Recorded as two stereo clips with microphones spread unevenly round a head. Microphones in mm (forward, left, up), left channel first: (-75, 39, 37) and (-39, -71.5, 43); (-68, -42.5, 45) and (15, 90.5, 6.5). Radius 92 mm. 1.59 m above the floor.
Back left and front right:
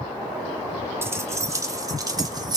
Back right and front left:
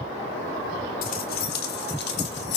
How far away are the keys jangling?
About 1.8 m.